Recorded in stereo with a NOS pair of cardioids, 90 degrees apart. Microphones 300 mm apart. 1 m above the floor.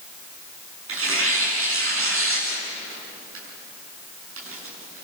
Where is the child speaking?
I don't hear a child speaking.